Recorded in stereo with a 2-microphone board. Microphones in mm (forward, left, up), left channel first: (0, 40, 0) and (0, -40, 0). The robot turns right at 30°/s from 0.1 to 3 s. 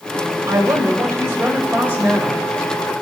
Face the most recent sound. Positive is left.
turn(degrees=-5)